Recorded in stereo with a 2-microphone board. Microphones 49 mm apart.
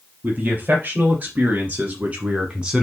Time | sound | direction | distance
0.2 | a man speaking | 35° right (ahead or behind) | 3.5 m